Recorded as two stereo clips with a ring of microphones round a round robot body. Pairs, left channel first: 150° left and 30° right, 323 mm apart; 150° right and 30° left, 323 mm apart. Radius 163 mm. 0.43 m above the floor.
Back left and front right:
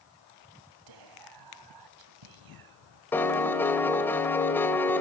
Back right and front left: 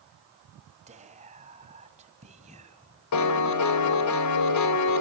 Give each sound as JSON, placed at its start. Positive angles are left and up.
{"t": 0.9, "sound": "whispering", "azimuth_deg": -40, "distance_m": 3.0}
{"t": 3.1, "sound": "a piano", "azimuth_deg": -125, "distance_m": 2.5}